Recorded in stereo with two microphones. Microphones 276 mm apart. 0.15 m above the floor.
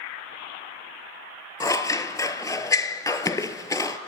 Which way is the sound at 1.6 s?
10° left (ahead or behind).